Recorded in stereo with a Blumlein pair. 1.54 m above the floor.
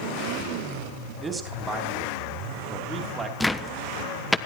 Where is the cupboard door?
Straight ahead, 1.0 m.